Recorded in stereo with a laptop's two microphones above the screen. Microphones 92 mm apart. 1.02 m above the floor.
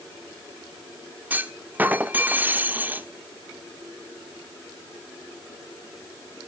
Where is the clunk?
20° right (ahead or behind), 1.0 m.